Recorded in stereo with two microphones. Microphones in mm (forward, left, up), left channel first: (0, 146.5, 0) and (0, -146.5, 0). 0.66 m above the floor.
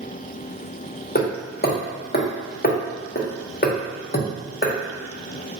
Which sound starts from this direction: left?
Hammering, at 1.1 s.